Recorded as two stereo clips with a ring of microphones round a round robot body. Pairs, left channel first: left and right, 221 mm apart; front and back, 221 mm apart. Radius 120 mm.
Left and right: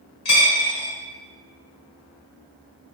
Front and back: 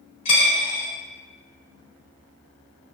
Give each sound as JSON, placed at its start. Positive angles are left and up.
{"t": 0.2, "sound": "a dropped coin", "azimuth_deg": 65, "distance_m": 1.8}